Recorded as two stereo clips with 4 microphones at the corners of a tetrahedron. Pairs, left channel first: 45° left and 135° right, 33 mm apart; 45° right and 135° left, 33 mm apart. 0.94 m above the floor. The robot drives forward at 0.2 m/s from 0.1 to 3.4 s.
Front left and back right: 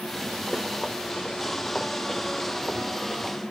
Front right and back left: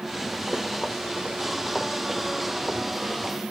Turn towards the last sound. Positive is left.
turn(degrees=170)